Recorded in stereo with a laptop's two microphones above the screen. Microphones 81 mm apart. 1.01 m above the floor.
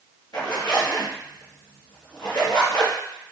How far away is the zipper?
About 1.3 m.